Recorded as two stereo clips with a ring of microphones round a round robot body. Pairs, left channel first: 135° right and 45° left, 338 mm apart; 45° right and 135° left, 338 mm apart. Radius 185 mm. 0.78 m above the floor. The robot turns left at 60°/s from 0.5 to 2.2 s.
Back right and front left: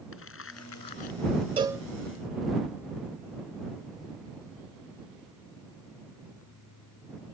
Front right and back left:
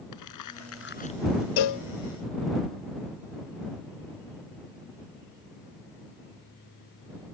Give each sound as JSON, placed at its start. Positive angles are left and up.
{"t": 0.1, "sound": "crumpling", "azimuth_deg": -80}
{"t": 1.6, "sound": "a cowbell", "azimuth_deg": -30}